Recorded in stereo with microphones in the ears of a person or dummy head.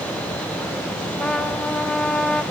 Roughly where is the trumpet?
Centre.